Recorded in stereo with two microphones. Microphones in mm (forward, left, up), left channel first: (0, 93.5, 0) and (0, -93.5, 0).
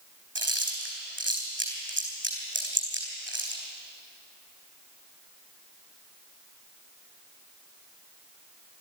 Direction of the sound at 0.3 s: 85° right.